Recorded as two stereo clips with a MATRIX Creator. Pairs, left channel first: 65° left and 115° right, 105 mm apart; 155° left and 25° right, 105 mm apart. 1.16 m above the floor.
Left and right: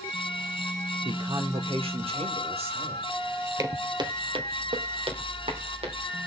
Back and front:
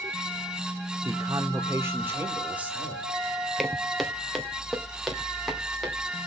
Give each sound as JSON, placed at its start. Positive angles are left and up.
{"t": 1.1, "sound": "a man speaking", "azimuth_deg": -75, "distance_m": 1.7}
{"t": 3.6, "sound": "footsteps", "azimuth_deg": -115, "distance_m": 1.3}